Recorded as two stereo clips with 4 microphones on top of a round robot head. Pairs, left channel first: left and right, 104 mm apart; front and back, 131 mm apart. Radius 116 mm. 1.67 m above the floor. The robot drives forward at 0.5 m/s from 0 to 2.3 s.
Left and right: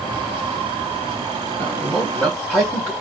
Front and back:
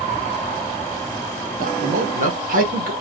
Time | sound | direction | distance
1.6 | a man speaking | 170° left | 1.7 m